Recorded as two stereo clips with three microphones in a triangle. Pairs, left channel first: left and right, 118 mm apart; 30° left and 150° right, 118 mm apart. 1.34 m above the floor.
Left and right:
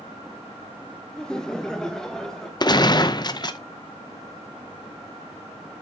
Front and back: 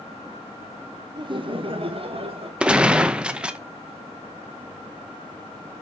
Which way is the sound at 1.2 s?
175° left.